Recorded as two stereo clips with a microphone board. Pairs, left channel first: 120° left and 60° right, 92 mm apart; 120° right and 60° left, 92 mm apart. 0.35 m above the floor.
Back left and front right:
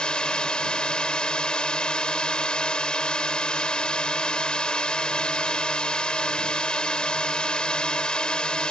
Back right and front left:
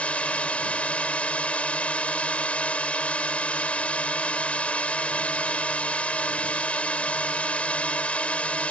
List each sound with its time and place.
0.0 s a drone: 175° right